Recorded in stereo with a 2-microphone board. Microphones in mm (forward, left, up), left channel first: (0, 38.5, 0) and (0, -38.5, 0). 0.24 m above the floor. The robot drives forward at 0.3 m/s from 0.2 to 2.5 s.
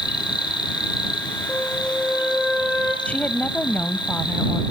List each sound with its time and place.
0.0 s an insect: 70° left (ahead or behind), 4 m; by 4.7 s 75° left (ahead or behind), 4 m
1.5 s a flute: 5° left (ahead or behind), 7.5 m
3.0 s a woman speaking: 20° left (ahead or behind), 0.9 m